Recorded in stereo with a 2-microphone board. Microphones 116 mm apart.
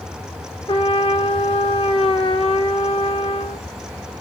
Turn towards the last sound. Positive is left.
turn(degrees=50)  # may be behind; listen again after turning